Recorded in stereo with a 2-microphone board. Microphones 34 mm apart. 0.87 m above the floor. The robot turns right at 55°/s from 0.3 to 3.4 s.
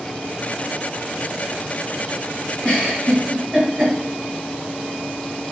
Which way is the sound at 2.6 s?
20° left (ahead or behind).